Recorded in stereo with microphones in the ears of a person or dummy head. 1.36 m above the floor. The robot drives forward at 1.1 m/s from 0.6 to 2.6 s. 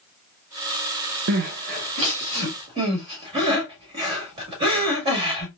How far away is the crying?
About 0.9 m.